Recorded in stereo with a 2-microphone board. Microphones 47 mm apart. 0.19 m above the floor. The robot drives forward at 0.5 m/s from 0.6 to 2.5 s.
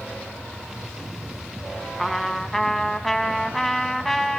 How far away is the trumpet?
About 0.8 m.